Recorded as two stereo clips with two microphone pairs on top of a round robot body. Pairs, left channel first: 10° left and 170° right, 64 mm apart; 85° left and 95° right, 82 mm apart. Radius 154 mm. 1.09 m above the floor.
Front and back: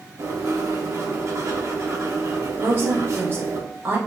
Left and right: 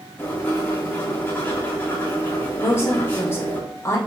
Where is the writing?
150° left, 1.5 m.